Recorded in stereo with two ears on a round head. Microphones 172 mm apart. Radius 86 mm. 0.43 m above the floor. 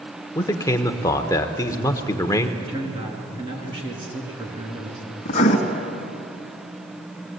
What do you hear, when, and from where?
0.3 s a man speaking: 20° left (ahead or behind), 1.1 m
2.6 s a man speaking: 25° right (ahead or behind), 4.5 m
5.2 s writing: 40° left (ahead or behind), 2.5 m